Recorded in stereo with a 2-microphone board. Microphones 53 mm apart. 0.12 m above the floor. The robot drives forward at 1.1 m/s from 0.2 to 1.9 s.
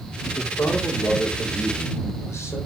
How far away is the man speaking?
About 4.5 m.